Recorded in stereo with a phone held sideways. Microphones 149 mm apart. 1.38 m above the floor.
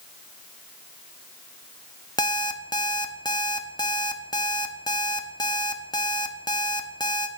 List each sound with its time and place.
2.2 s an alarm clock: 30° left (ahead or behind), 1.0 m